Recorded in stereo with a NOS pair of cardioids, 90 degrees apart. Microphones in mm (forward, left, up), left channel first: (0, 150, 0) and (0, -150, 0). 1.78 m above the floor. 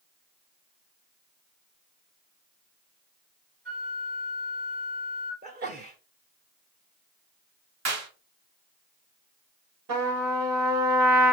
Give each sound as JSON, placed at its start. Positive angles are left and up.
{"t": 3.6, "sound": "a flute", "azimuth_deg": -30, "distance_m": 3.0}
{"t": 5.4, "sound": "a sneeze", "azimuth_deg": -30, "distance_m": 0.7}
{"t": 7.8, "sound": "a clap", "azimuth_deg": -65, "distance_m": 2.5}
{"t": 9.9, "sound": "a trumpet", "azimuth_deg": -65, "distance_m": 3.5}